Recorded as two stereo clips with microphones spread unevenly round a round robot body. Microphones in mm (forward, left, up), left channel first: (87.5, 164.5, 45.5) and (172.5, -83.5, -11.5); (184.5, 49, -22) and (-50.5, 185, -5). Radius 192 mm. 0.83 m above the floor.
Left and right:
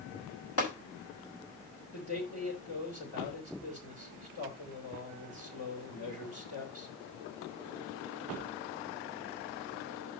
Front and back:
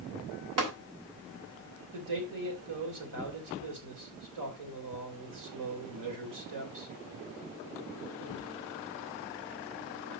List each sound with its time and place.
0.6 s tapping: 165° left, 3.5 m
1.9 s a man speaking: 165° left, 3 m